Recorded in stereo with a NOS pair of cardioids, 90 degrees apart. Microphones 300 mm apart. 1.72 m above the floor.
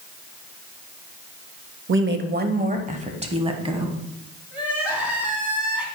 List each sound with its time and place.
1.9 s a woman speaking: 40° right, 0.8 m; by 4.0 s 15° right, 1.8 m
4.5 s crying: 5° right, 2.5 m